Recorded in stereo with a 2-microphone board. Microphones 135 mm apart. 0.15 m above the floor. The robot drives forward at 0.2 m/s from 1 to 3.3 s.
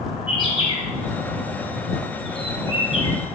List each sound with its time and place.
0.3 s a bird: 40° left (ahead or behind), 1.3 m; by 3.1 s 45° left (ahead or behind), 1.2 m